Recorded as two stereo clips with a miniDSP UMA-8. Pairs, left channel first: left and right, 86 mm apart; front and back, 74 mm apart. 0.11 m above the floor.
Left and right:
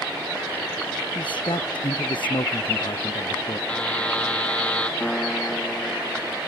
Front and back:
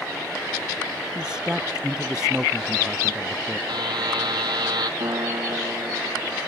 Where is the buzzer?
165° left.